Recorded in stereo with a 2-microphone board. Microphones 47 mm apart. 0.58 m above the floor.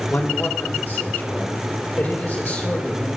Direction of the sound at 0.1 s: 45° left (ahead or behind).